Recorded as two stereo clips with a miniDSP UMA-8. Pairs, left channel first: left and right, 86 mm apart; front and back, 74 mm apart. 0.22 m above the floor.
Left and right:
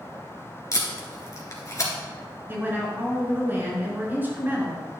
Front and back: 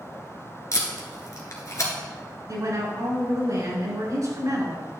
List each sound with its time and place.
0.7 s tape being pulled: 40° left, 1.7 m
2.5 s a woman speaking: 155° right, 3 m